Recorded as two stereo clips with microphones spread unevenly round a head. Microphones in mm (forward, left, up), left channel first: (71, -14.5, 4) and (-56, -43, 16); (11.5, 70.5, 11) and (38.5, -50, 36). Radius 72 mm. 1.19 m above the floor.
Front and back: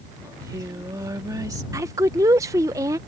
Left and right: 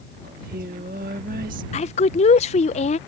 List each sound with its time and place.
0.2 s singing: 105° right
1.7 s a woman speaking: 120° left